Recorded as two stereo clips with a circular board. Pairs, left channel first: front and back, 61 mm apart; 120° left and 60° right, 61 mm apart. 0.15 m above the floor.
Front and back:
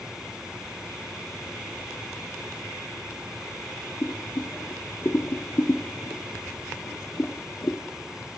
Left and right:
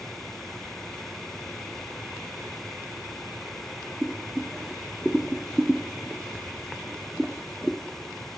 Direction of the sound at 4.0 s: 25° left.